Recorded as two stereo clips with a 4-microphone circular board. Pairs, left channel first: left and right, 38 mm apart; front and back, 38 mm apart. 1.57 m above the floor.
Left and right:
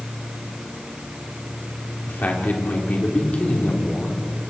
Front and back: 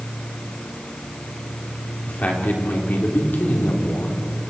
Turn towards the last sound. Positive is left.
turn(degrees=25)